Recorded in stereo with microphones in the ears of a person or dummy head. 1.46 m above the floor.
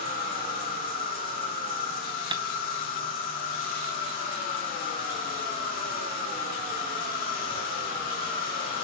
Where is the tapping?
20° right (ahead or behind), 0.8 m.